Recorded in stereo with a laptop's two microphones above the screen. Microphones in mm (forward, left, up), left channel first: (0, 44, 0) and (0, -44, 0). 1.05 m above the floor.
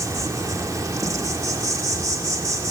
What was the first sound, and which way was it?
An insect, 40° right (ahead or behind).